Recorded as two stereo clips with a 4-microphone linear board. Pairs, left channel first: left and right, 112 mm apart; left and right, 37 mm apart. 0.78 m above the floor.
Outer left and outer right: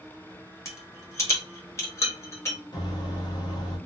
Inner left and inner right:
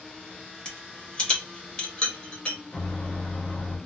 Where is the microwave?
40° left (ahead or behind), 1.0 m.